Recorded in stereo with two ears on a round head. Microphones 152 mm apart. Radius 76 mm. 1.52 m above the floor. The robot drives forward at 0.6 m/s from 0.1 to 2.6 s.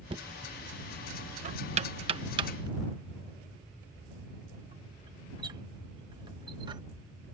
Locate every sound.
0.1 s knocking: 30° right (ahead or behind); by 6.8 s 25° right (ahead or behind)